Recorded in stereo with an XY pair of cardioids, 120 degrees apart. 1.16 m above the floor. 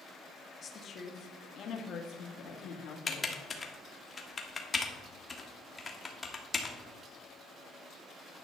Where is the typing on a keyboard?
25° left, 1.5 m.